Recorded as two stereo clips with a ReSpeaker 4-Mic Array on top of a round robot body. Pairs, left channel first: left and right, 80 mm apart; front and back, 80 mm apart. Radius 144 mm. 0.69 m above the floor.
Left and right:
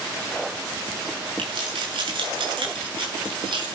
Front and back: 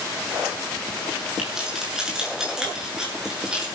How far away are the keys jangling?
About 8 m.